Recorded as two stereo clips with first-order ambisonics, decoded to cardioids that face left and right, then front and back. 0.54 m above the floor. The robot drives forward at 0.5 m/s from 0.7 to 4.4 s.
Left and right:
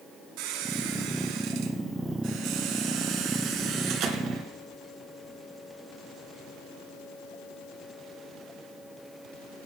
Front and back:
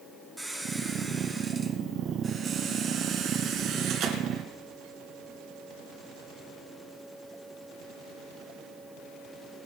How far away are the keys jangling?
I don't hear keys jangling.